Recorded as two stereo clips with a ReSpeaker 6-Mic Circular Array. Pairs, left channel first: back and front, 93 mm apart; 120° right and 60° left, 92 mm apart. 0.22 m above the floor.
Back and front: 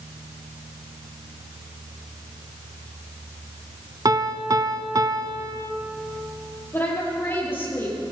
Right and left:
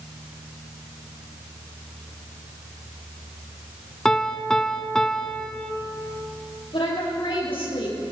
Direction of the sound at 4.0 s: 40° right.